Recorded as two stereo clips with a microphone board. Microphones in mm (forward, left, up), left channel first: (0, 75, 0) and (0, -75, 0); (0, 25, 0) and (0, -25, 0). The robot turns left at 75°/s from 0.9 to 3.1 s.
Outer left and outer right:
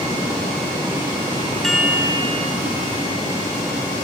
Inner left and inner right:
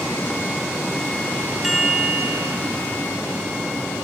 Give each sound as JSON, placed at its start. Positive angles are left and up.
{"t": 1.6, "sound": "a chime", "azimuth_deg": 5, "distance_m": 1.3}